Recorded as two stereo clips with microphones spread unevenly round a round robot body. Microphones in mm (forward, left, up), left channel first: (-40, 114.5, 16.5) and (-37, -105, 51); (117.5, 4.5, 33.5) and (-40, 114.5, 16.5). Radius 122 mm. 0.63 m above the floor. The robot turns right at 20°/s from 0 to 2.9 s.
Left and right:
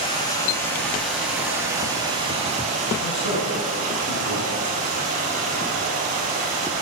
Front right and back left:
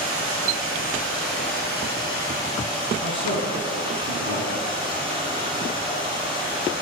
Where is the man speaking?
125° left, 6 m.